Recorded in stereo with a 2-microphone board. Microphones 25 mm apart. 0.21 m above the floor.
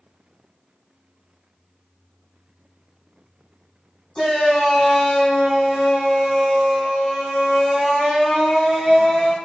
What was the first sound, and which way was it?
A shout, 30° left (ahead or behind).